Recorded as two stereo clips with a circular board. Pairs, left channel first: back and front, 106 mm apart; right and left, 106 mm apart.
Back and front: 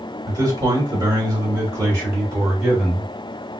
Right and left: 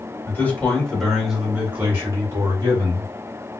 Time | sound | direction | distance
0.3 | a man speaking | 35° right | 1.5 m